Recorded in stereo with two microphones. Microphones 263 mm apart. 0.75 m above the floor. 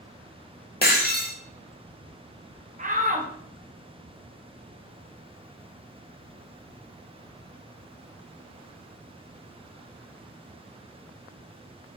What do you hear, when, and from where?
0.8 s breaking glass: 35° left (ahead or behind), 0.7 m
2.8 s a shout: 30° right (ahead or behind), 0.7 m